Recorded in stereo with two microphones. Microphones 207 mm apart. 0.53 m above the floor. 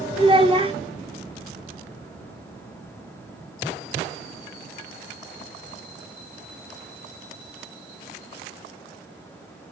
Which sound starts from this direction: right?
A child speaking, at 0.2 s.